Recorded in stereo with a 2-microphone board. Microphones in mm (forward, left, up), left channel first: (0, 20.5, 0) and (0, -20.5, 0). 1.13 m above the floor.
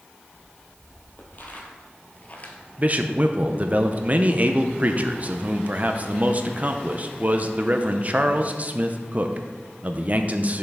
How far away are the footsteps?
About 2.5 m.